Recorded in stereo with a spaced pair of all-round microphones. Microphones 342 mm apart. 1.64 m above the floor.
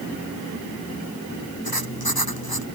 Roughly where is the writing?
Left.